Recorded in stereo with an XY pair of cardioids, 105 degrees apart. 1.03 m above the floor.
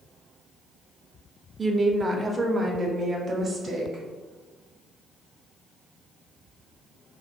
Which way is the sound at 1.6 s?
25° right.